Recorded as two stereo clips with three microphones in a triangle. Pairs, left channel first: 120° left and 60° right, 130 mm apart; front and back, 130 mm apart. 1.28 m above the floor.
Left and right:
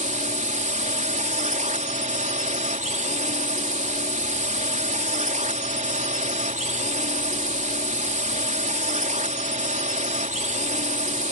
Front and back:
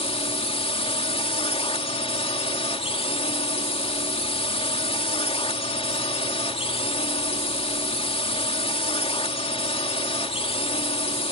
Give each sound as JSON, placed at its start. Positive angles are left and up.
{"t": 0.0, "sound": "a drone", "azimuth_deg": -40}